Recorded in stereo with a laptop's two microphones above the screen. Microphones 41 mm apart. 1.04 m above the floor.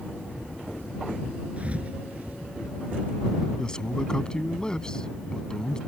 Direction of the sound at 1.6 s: 30° right (ahead or behind).